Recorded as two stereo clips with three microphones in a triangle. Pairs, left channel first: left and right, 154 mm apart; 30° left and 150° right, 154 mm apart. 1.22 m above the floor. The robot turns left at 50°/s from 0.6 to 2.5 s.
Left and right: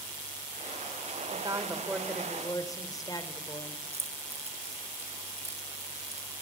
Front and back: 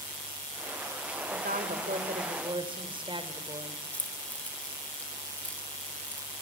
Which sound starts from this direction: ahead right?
Keys jangling, at 3.9 s.